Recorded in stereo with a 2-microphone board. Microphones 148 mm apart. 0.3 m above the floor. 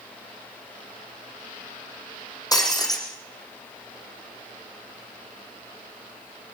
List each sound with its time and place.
2.5 s breaking glass: 25° left (ahead or behind), 5 m